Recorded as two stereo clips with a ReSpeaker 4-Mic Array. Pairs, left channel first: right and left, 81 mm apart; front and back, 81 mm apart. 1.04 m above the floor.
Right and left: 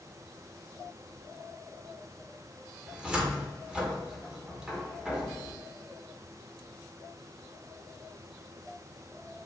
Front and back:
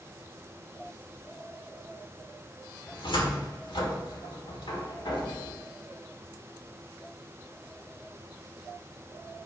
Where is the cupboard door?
10° left, 1.6 m.